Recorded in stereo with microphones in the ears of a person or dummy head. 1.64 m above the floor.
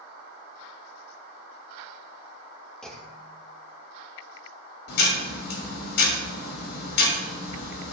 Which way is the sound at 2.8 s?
Centre (ahead or behind).